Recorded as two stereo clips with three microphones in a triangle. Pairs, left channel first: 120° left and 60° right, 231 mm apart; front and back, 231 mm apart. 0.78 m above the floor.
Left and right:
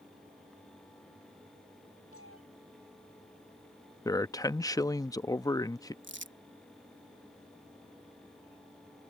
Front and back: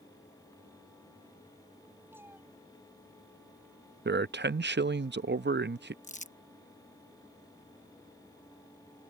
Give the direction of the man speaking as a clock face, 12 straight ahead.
6 o'clock.